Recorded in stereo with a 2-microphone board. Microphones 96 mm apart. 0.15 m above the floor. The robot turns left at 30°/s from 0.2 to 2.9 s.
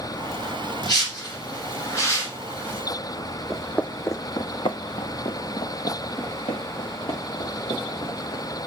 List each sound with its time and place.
0.8 s a whoosh: 45° left (ahead or behind), 1.9 m; by 2.8 s 20° left (ahead or behind), 1.9 m
3.5 s footsteps: centre (ahead or behind), 0.5 m; by 8.4 s 85° left, 2.5 m